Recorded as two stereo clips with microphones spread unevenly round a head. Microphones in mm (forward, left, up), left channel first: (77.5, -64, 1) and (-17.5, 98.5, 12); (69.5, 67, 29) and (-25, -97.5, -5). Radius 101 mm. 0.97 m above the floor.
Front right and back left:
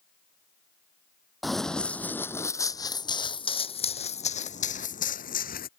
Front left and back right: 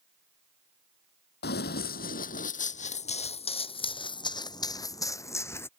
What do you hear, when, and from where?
1.4 s running footsteps: 30° left; by 5.7 s 15° right